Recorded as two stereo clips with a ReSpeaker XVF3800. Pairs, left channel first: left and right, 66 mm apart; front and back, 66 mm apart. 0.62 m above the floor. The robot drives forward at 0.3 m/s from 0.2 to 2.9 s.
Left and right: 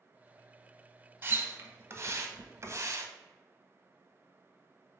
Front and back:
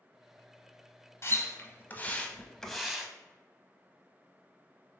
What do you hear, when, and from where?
1.2 s a splash: 40° right, 0.7 m; by 3.1 s 100° right, 0.5 m